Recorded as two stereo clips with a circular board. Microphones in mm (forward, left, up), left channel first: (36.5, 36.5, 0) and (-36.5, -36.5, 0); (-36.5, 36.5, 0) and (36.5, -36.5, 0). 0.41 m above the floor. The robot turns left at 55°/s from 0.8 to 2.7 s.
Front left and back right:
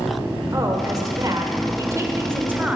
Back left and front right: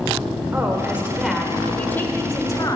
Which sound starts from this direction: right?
A woman speaking, at 0.5 s.